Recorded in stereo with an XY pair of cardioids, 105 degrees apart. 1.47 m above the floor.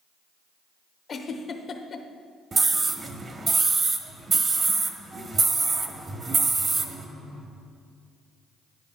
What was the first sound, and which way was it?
A giggle, 45° left.